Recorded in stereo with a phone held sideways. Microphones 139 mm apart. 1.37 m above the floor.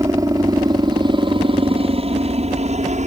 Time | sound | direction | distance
0.0 | a helicopter | 25° right (ahead or behind) | ?